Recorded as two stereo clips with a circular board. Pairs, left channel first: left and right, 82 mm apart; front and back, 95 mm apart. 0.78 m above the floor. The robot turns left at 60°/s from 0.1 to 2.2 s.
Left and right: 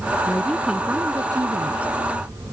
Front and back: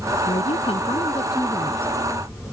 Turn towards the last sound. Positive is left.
turn(degrees=-100)